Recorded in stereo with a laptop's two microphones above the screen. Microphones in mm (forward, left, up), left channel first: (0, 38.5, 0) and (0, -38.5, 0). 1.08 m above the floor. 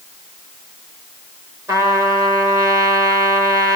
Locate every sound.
1.7 s a trumpet: 40° right (ahead or behind), 3.5 m